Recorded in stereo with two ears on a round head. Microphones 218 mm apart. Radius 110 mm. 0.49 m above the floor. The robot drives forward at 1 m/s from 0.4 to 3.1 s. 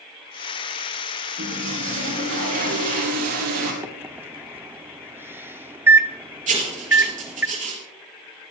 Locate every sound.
1.4 s a toilet flushing: 45° right (ahead or behind), 4.5 m; by 3.7 s 65° right (ahead or behind), 3.5 m
3.8 s a microwave: 10° right (ahead or behind), 0.7 m
6.5 s writing: 30° right (ahead or behind), 4 m